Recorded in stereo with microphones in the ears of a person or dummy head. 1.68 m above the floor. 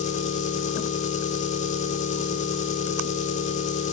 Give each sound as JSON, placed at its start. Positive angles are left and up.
{"t": 0.0, "sound": "an engine running", "side_deg": 40, "distance_m": 3.0}